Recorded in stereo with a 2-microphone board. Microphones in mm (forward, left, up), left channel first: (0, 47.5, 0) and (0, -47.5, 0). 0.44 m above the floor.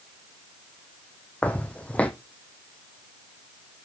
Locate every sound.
1.4 s footsteps: 15° left (ahead or behind), 1.2 m